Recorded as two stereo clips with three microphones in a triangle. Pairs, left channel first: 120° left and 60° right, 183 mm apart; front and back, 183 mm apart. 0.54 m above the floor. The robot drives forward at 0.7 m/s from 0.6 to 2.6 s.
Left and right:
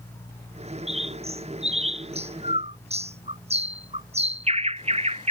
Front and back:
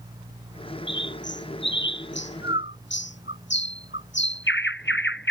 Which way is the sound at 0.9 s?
5° right.